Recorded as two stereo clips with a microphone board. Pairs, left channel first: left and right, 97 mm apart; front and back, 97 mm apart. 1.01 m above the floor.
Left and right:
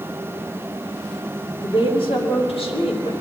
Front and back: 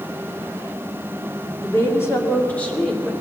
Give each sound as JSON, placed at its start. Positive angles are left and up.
{"t": 1.6, "sound": "a woman speaking", "azimuth_deg": 55, "distance_m": 2.0}